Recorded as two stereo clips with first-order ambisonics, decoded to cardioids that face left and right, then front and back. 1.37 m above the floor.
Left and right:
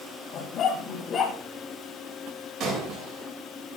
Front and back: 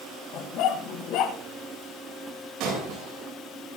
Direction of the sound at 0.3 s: 40° left.